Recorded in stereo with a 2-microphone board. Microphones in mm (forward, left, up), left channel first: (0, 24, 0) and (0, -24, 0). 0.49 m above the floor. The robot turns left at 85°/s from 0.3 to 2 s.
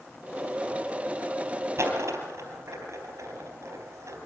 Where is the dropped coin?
65° right (ahead or behind), 4 m; by 4.2 s 85° right, 4 m.